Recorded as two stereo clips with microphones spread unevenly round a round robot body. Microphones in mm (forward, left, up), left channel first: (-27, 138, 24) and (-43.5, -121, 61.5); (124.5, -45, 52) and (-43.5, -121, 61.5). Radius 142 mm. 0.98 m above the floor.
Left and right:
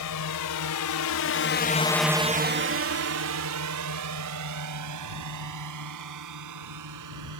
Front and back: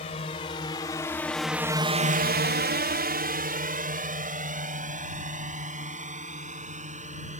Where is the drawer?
I don't hear a drawer.